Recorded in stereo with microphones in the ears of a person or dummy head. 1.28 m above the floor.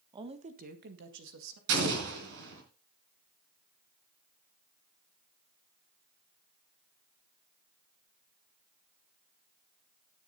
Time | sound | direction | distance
0.1 | a woman speaking | 20° right (ahead or behind) | 1.2 m
1.7 | an explosion | 70° right (ahead or behind) | 3.5 m